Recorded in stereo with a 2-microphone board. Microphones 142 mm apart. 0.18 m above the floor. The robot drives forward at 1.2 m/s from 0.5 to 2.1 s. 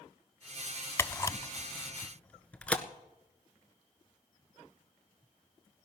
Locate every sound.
1.0 s a camera shutter: 20° left (ahead or behind), 0.6 m; by 2.8 s 10° left (ahead or behind), 1.1 m